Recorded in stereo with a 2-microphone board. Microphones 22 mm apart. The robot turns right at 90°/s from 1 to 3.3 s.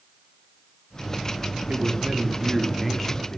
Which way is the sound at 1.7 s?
105° right.